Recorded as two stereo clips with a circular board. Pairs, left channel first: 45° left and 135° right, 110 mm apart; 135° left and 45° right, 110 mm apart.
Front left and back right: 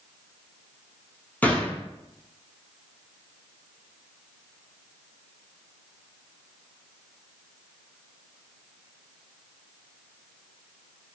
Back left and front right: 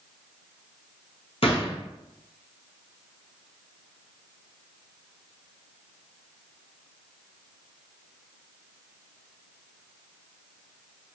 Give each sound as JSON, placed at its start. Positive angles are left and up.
{"t": 1.4, "sound": "a gunshot", "azimuth_deg": 120, "distance_m": 0.6}